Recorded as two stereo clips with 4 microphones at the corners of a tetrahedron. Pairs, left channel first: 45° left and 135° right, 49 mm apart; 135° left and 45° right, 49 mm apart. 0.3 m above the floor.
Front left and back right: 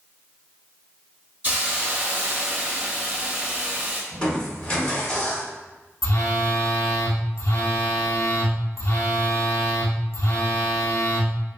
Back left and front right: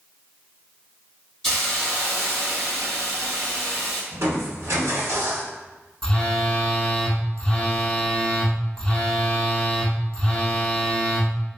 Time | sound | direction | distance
1.4 | a hiss | 150° right | 1.1 m
4.1 | crushing | 25° right | 1.1 m
6.0 | a phone buzzing | 65° left | 0.6 m